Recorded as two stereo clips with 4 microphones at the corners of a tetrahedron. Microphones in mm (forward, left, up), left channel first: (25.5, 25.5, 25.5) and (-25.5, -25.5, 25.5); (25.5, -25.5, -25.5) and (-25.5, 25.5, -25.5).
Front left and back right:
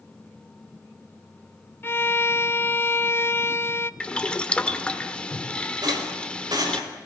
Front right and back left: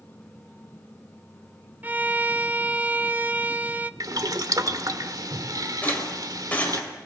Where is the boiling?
115° left, 1.2 m.